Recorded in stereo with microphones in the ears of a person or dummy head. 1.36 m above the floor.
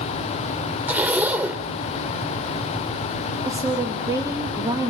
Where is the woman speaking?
15° right (ahead or behind), 1.9 m.